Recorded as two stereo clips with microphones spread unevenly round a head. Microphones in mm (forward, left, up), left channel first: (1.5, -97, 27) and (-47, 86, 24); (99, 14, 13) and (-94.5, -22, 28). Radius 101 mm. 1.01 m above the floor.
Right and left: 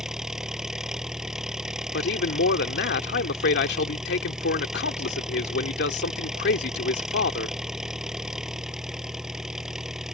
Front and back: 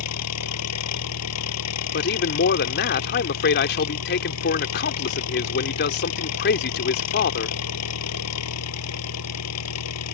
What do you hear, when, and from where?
0.0 s an engine running: 20° left
1.9 s a man speaking: 30° right